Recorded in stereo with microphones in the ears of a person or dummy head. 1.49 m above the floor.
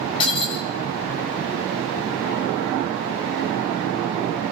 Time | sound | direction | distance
0.2 | breaking glass | 25° left (ahead or behind) | 6.5 m